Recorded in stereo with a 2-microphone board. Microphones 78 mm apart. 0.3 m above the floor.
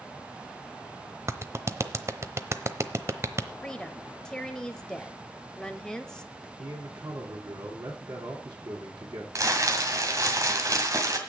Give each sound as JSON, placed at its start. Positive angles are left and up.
{"t": 1.3, "sound": "a clap", "side_deg": -40, "distance_m": 0.8}
{"t": 3.6, "sound": "a woman speaking", "side_deg": 10, "distance_m": 1.1}
{"t": 6.6, "sound": "a man speaking", "side_deg": -65, "distance_m": 3.0}
{"t": 9.3, "sound": "crumpling", "side_deg": -45, "distance_m": 1.9}